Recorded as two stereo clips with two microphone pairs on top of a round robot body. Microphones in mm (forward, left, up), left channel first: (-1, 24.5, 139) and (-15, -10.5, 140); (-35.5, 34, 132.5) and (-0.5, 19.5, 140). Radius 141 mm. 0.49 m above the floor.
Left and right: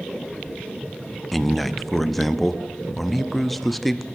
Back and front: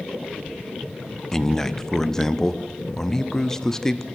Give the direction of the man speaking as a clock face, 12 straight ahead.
7 o'clock.